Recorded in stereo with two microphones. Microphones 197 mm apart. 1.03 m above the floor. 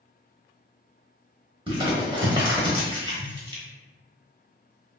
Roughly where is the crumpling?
Right.